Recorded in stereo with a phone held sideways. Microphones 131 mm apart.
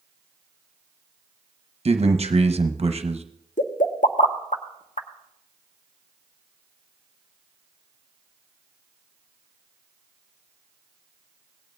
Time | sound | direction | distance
1.9 | a man speaking | 50° right (ahead or behind) | 0.8 m
3.6 | a pop | 75° left (ahead or behind) | 0.9 m